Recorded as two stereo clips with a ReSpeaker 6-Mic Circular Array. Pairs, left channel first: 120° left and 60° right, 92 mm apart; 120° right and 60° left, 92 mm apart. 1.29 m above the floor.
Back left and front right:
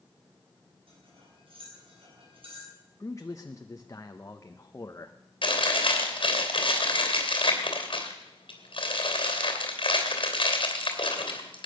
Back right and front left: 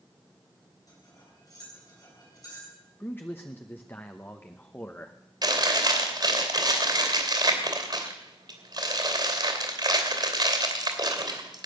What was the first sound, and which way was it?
Cutlery clinking, 70° right.